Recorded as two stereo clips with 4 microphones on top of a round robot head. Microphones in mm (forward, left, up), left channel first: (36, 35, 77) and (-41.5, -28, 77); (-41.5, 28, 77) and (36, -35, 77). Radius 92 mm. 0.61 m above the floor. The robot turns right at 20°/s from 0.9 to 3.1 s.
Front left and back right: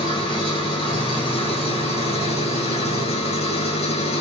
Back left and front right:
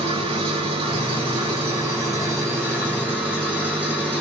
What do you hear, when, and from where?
0.0 s an engine running: 5° right, 8 m; by 4.2 s 40° left, 8 m